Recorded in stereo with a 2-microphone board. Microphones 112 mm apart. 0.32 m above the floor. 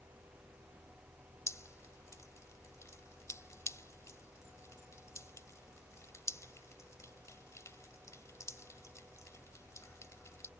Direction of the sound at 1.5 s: 25° left (ahead or behind).